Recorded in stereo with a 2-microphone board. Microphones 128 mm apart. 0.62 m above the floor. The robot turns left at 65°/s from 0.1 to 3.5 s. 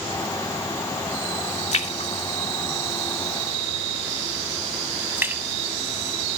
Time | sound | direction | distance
1.7 | a splash | 60° left (ahead or behind) | 0.7 m